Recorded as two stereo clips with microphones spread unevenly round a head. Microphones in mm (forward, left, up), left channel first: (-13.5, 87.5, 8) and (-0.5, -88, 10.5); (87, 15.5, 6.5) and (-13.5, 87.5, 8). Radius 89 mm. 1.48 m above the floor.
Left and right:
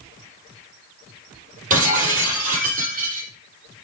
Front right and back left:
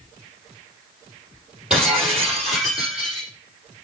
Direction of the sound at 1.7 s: 130° right.